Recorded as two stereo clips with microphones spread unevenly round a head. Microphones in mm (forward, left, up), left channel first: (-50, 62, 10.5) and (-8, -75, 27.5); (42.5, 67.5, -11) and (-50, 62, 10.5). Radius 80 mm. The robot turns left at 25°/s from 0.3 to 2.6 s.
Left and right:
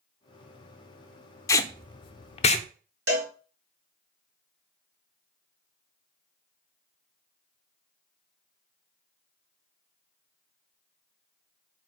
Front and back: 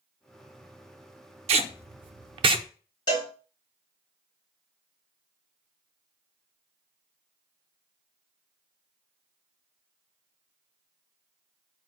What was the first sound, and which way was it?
Tape being pulled, 175° left.